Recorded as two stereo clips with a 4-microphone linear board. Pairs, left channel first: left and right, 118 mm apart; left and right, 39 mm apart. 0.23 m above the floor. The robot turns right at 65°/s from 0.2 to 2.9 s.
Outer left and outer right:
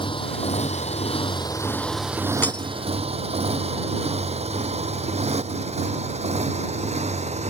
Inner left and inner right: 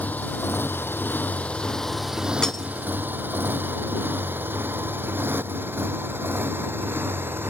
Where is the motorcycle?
50° left (ahead or behind); by 7.5 s 85° right.